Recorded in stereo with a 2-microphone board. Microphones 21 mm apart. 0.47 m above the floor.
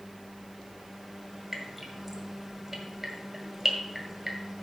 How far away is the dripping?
About 1.7 m.